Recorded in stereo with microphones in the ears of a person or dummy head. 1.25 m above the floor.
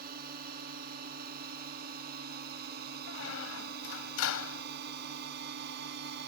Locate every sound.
0.0 s a drone: 50° right (ahead or behind); by 6.3 s 55° right (ahead or behind)
3.1 s a squeak: 70° left (ahead or behind)